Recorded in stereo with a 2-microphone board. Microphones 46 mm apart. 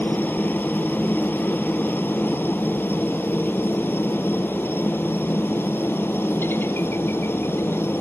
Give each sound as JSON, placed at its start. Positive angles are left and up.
{"t": 0.0, "sound": "a helicopter", "side_deg": 45}